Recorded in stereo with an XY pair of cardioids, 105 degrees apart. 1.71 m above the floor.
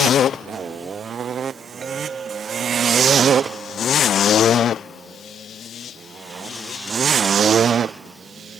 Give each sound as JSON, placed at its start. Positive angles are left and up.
{"t": 1.8, "sound": "a clink", "azimuth_deg": -40}